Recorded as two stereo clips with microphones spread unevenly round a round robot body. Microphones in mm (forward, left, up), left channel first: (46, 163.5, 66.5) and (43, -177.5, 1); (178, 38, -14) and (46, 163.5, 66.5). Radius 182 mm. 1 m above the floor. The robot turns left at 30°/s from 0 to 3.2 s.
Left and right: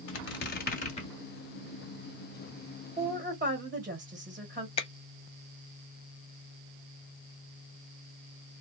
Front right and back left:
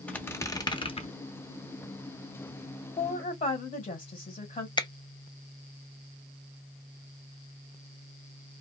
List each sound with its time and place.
0.1 s a squeak: 55° left, 0.9 m; by 1.1 s 25° left, 0.9 m
3.0 s a woman speaking: 30° right, 1.3 m; by 4.7 s 40° right, 1.3 m
4.8 s a finger snap: 10° left, 0.6 m